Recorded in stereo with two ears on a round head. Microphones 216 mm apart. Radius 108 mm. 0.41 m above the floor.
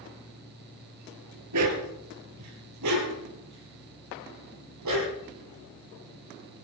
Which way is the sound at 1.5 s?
80° right.